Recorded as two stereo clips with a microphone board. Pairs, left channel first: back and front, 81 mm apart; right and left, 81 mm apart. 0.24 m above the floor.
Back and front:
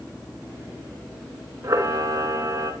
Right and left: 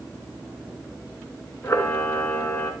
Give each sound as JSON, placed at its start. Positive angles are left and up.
{"t": 1.6, "sound": "a camera shutter", "azimuth_deg": -40, "distance_m": 2.5}